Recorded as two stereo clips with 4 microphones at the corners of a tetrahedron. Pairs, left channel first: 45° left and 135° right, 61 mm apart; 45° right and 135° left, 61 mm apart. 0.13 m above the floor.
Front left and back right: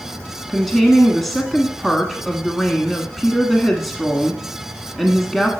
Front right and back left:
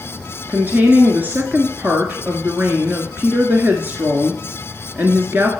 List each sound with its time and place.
0.5 s a woman speaking: 130° left, 1.2 m